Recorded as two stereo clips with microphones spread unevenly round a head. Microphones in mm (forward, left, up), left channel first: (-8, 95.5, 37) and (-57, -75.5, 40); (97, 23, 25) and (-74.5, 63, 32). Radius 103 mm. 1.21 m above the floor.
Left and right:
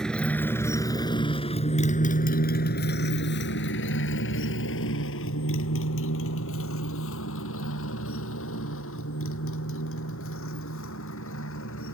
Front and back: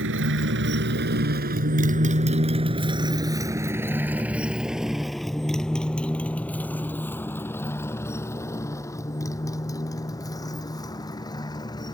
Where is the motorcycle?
160° left; by 11.9 s 55° left.